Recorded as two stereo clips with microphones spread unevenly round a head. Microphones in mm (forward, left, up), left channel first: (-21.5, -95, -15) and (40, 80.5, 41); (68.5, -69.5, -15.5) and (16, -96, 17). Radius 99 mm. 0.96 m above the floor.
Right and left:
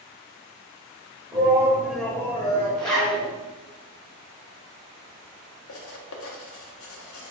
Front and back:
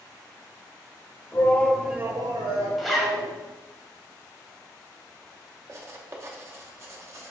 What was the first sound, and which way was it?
A shout, 10° right.